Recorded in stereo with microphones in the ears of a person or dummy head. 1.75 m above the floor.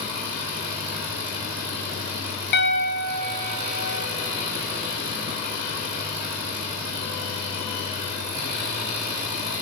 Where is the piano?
60° left (ahead or behind), 0.7 m.